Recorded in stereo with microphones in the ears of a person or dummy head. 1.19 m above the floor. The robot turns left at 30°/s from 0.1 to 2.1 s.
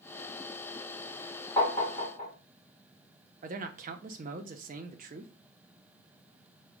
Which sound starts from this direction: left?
Tapping, at 1.6 s.